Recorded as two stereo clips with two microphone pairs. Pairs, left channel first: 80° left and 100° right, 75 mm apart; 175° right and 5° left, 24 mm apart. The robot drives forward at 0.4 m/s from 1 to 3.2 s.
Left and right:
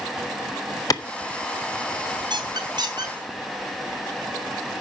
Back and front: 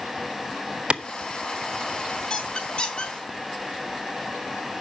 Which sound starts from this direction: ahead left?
A clap, at 0.9 s.